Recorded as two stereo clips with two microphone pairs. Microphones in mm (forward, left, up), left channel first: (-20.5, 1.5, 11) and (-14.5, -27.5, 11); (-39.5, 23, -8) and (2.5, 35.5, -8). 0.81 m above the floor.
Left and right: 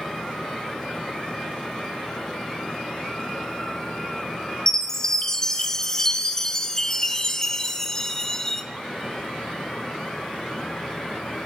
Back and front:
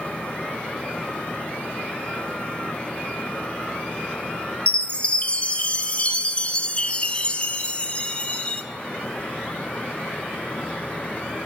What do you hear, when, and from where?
4.7 s a chime: 165° left, 0.7 m